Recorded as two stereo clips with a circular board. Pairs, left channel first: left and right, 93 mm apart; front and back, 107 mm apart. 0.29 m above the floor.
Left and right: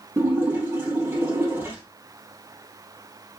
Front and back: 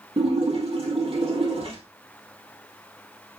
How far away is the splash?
About 2.5 m.